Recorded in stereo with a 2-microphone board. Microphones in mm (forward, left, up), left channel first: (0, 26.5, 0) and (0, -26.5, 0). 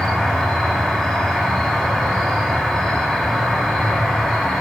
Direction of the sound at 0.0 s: 10° left (ahead or behind).